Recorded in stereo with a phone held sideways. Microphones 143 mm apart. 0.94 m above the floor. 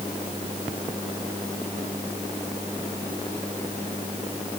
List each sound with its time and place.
Only background noise.